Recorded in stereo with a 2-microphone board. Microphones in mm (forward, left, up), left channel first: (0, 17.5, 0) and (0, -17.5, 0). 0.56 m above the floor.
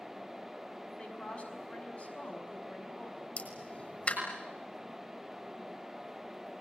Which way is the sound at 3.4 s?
45° left (ahead or behind).